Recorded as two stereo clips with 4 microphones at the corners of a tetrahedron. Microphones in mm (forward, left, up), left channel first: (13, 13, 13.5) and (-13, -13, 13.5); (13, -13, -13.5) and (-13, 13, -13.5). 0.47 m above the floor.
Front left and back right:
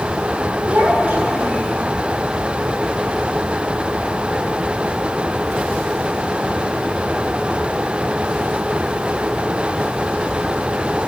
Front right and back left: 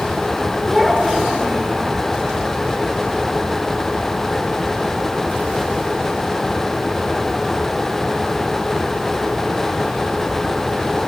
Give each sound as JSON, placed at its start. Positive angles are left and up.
{"t": 0.7, "sound": "a child speaking", "azimuth_deg": -135, "distance_m": 3.5}